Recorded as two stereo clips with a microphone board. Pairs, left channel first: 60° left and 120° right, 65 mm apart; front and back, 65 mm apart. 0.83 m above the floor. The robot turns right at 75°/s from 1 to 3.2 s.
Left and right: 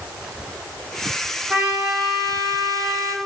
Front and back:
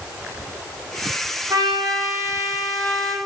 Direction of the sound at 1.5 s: 170° left.